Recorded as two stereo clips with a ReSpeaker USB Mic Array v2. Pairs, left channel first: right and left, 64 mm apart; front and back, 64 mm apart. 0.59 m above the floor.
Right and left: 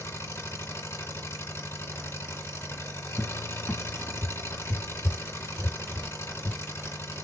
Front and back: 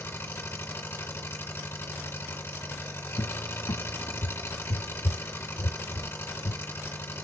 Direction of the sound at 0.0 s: 50° right.